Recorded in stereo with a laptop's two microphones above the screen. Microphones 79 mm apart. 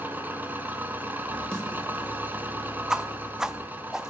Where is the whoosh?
10° right (ahead or behind), 0.7 m.